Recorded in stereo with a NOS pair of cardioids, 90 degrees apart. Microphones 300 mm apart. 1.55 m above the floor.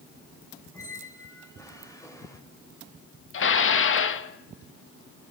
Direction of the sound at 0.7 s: 10° left.